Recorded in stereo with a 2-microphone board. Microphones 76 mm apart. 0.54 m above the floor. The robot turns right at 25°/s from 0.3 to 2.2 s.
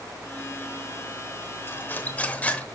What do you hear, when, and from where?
1.7 s cutlery clinking: 35° left (ahead or behind), 0.9 m; by 2.6 s 20° left (ahead or behind), 0.9 m